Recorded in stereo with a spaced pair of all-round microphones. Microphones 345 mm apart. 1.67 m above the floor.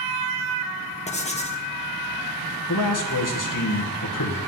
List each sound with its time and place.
1.1 s writing: 20° left (ahead or behind), 1.1 m
2.7 s a man speaking: 60° left (ahead or behind), 1.8 m